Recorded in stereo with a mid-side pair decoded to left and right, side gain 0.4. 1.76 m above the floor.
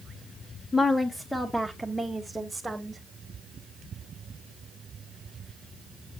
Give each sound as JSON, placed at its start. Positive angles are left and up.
{"t": 0.7, "sound": "a woman speaking", "azimuth_deg": 35, "distance_m": 1.4}